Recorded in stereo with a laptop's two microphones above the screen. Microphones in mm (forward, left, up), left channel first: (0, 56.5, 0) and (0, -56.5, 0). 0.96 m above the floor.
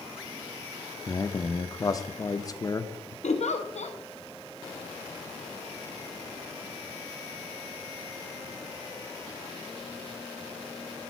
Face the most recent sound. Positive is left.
turn(degrees=75)  # may be behind; listen again after turning